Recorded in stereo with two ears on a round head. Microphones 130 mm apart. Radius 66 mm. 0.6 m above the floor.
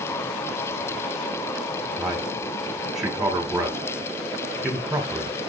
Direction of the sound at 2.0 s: Centre (ahead or behind).